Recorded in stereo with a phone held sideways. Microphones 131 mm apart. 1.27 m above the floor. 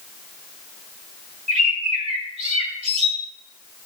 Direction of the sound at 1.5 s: 55° right (ahead or behind).